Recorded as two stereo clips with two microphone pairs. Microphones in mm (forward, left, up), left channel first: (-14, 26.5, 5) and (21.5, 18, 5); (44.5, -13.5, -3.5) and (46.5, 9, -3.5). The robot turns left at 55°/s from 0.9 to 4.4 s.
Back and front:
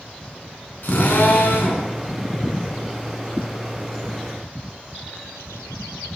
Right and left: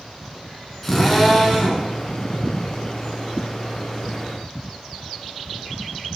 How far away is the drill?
About 3.5 m.